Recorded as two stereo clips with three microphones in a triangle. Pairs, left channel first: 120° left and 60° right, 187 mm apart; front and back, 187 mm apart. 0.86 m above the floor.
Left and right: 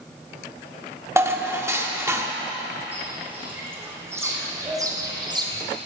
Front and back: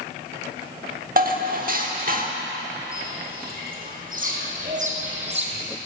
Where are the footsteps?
140° right, 3.5 m; by 5.6 s 125° right, 1.8 m.